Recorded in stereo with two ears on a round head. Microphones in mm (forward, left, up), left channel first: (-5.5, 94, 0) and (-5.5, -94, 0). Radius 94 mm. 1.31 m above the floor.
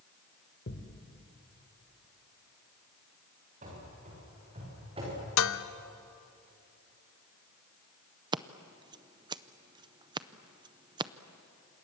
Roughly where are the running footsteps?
Right.